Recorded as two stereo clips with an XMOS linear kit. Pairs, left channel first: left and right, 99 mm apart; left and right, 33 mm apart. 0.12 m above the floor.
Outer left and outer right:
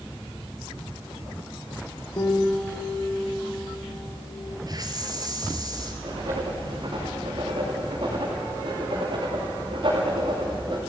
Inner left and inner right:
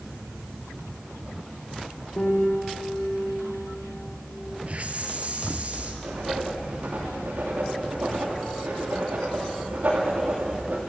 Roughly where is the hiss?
Right.